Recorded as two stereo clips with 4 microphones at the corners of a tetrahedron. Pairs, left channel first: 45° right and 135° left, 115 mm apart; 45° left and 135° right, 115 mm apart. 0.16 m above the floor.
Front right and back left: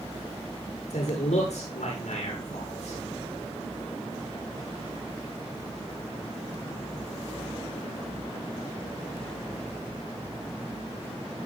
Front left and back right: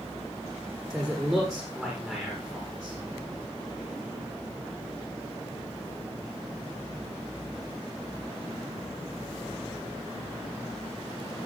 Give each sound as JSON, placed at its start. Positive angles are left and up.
{"t": 0.9, "sound": "a man speaking", "azimuth_deg": -40, "distance_m": 9.5}